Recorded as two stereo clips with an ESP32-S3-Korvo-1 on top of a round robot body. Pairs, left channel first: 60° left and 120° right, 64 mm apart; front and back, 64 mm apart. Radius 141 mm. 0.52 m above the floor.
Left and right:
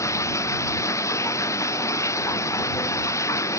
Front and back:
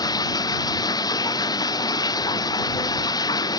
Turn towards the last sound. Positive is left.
turn(degrees=15)